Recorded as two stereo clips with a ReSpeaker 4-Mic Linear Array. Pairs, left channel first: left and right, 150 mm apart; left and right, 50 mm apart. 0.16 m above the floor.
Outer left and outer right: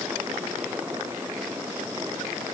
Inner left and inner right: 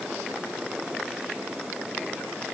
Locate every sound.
Only background noise.